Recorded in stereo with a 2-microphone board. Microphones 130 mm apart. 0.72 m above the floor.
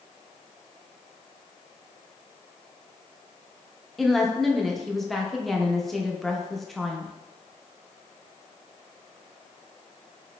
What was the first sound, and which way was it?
A woman speaking, centre (ahead or behind).